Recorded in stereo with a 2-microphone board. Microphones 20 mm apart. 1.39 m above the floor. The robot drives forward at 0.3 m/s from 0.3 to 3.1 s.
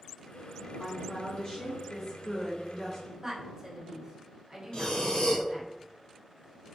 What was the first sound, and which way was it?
A woman speaking, 50° left (ahead or behind).